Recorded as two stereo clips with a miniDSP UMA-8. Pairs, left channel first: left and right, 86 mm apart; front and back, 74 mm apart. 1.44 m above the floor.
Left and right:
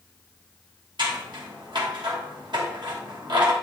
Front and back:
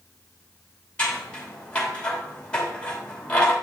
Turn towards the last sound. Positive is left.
turn(degrees=-75)